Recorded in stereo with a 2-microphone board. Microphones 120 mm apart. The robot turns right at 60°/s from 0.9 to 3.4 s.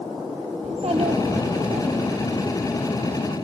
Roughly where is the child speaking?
Behind right.